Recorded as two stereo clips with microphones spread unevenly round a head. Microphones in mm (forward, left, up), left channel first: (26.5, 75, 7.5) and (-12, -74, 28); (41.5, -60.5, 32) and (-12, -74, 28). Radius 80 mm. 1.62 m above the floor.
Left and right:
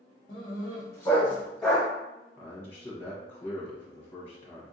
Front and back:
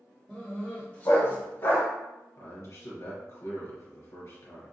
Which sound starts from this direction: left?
A dog barking, at 0.3 s.